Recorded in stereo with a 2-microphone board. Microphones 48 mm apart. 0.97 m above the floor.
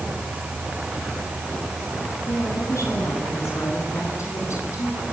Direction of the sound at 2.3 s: 80° left.